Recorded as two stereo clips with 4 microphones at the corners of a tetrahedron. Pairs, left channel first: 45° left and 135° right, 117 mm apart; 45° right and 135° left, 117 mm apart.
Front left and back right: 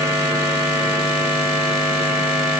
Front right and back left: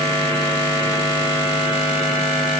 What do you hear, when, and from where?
Only background noise.